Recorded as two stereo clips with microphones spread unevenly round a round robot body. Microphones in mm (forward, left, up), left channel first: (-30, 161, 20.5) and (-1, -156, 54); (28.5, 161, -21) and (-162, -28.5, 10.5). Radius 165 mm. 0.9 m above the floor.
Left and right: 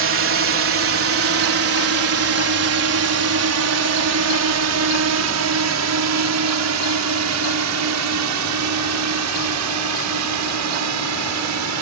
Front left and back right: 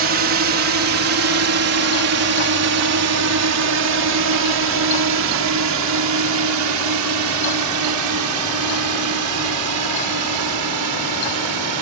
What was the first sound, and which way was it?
A drone, 120° right.